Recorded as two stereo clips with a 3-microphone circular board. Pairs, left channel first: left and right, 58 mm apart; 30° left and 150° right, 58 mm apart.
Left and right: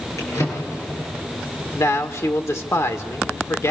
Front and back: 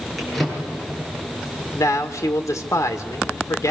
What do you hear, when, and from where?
0.2 s a drawer: 115° left, 10 m
1.8 s a man speaking: 55° left, 2 m